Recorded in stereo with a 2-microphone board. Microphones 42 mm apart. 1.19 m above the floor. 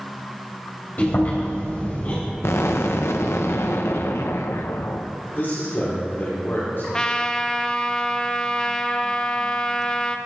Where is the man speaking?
55° left (ahead or behind), 4.5 m.